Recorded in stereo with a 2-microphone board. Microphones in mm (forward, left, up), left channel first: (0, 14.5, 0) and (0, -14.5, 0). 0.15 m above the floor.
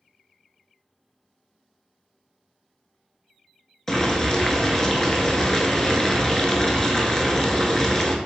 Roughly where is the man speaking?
I don't hear a man speaking.